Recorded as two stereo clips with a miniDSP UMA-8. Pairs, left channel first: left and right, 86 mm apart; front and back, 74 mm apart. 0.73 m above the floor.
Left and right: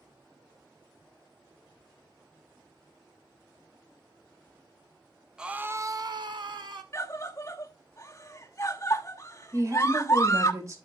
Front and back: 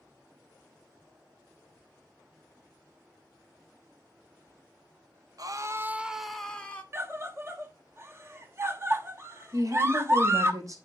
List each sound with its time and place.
5.4 s a scream: 170° right, 0.8 m; by 6.8 s 70° right, 1.3 m
6.9 s a scream: 135° left, 1.1 m
9.5 s a woman speaking: 140° right, 3 m